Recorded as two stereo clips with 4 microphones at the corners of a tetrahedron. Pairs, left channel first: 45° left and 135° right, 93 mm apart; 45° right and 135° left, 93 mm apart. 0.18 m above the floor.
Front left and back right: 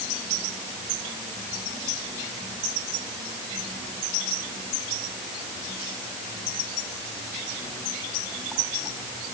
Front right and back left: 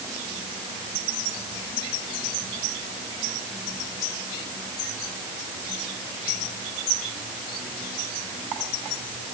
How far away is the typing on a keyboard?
No typing on a keyboard in this recording.